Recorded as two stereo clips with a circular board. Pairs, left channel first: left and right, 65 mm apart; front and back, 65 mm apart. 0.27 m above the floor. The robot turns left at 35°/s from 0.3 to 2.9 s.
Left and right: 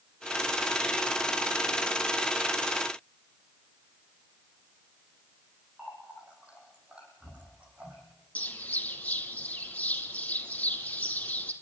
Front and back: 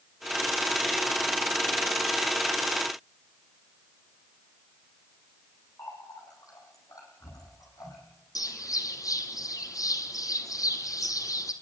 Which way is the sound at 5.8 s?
20° right.